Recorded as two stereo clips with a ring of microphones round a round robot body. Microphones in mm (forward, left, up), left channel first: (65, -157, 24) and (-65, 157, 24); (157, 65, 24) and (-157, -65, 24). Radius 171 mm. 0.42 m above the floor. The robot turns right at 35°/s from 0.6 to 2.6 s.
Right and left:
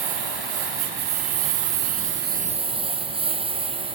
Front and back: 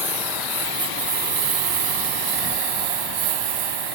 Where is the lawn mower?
120° left; by 4.0 s 170° right.